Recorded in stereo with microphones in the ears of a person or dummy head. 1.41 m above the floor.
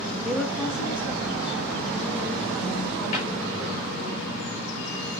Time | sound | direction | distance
0.2 | a woman speaking | centre (ahead or behind) | 1.1 m
3.1 | a cupboard door | 45° left (ahead or behind) | 5.5 m